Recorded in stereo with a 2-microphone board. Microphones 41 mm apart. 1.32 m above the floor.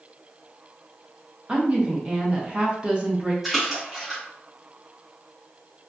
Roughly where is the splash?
Centre.